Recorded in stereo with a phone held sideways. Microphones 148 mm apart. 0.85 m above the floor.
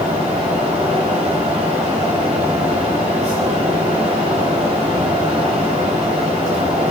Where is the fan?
45° right (ahead or behind), 3.5 m.